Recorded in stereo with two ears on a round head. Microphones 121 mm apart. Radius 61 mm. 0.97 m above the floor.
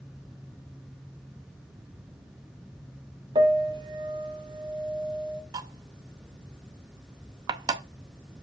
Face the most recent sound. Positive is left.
turn(degrees=-30)  # may be behind; listen again after turning